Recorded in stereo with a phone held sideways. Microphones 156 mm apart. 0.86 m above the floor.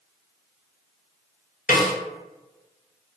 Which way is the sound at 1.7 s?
65° left (ahead or behind).